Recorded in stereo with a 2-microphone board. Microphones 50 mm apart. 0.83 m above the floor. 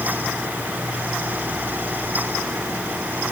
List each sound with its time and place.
Only background noise.